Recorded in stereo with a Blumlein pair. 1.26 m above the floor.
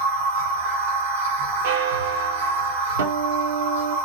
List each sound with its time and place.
0.0 s a machine running: 60° right, 1.4 m
1.6 s a bell: 55° right, 0.6 m
3.0 s a guitar: 65° right, 0.7 m